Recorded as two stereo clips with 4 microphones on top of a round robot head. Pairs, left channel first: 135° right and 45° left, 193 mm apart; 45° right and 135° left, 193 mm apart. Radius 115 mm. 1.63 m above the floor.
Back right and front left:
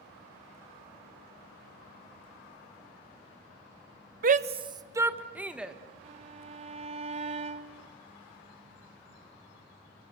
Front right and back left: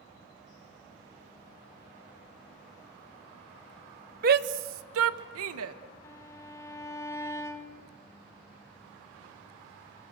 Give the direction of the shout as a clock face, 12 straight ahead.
9 o'clock.